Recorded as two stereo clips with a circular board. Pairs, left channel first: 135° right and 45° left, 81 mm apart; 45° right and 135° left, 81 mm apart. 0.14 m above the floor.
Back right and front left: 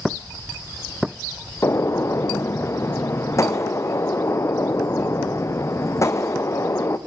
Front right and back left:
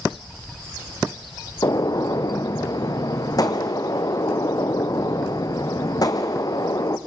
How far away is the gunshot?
About 1.3 m.